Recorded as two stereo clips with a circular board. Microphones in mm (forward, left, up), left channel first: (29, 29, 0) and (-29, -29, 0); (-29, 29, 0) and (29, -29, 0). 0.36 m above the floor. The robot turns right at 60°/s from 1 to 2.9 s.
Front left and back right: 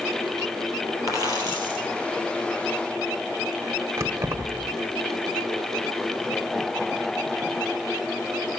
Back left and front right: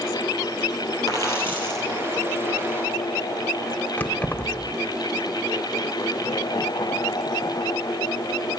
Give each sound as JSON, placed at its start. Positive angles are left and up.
{"t": 1.1, "sound": "a dropped coin", "azimuth_deg": 175, "distance_m": 3.0}
{"t": 4.0, "sound": "keys jangling", "azimuth_deg": -165, "distance_m": 0.9}